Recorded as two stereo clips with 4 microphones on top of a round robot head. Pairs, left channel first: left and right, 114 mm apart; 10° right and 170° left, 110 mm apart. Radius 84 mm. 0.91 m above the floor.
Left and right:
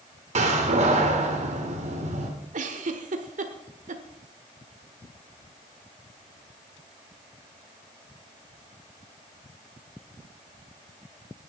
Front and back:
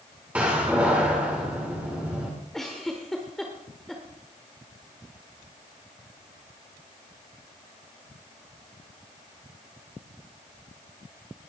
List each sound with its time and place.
0.3 s a door slam: 110° right, 2.0 m
2.5 s a giggle: 100° right, 1.2 m